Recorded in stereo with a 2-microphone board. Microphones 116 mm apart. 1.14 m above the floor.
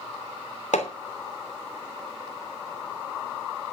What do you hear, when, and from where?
0.7 s hammering: 85° left, 3 m